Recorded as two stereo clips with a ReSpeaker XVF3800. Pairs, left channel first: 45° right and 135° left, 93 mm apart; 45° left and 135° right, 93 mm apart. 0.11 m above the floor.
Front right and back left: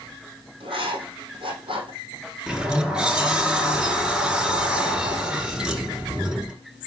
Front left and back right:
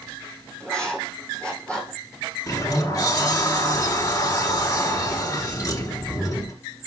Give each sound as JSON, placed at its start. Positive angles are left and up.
{"t": 0.6, "sound": "writing", "azimuth_deg": 125, "distance_m": 4.0}
{"t": 2.5, "sound": "a sliding door", "azimuth_deg": 60, "distance_m": 2.0}